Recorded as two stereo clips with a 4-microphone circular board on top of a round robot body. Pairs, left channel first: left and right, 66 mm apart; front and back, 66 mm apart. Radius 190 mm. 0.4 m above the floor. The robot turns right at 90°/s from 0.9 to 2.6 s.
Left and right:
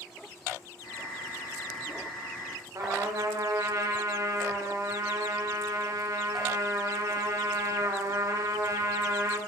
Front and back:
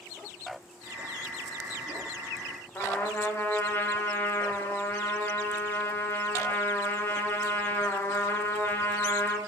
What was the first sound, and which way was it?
A trumpet, 60° right.